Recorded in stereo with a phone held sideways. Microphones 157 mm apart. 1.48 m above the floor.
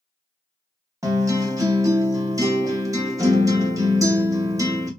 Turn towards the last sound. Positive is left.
turn(degrees=-20)  # may be behind; listen again after turning